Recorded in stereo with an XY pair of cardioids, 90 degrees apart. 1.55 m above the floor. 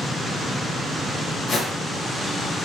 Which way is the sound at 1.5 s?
65° left.